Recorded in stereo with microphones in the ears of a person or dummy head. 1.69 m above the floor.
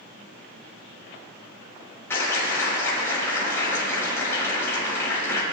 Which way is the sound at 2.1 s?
15° left (ahead or behind).